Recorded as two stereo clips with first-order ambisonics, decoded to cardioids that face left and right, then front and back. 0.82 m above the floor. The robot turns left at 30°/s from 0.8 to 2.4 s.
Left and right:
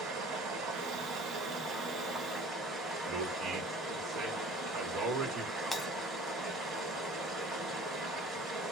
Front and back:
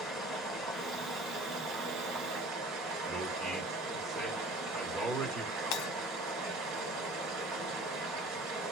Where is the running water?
110° right, 2 m; by 8.7 s 155° right, 2 m.